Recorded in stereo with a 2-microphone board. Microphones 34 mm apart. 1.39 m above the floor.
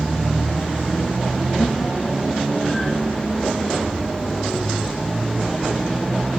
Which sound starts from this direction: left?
Laughter, at 1.6 s.